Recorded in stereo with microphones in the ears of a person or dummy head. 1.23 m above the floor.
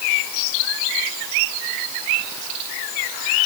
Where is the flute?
I don't hear a flute.